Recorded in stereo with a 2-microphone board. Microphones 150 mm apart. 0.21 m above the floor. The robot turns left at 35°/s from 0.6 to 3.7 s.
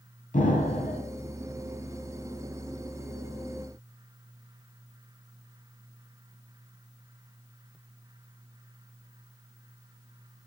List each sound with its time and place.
0.3 s an explosion: 60° left (ahead or behind), 0.7 m